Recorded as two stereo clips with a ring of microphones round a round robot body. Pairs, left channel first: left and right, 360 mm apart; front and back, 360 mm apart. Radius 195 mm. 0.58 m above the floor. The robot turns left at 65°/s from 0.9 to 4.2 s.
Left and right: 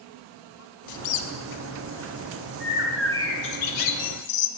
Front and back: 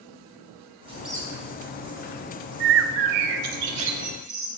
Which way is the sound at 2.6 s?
155° right.